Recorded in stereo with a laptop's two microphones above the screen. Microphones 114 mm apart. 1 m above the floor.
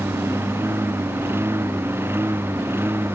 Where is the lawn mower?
20° right (ahead or behind).